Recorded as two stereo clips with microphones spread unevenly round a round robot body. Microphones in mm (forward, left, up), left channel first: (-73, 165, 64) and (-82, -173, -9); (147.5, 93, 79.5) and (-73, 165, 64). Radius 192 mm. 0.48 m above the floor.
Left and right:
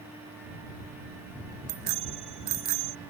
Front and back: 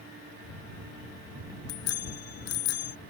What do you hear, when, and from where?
1.7 s a bicycle bell: 50° right